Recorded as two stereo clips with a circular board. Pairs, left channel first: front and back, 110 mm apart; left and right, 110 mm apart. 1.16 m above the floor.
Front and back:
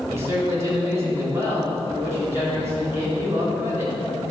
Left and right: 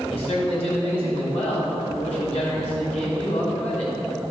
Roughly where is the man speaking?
Behind left.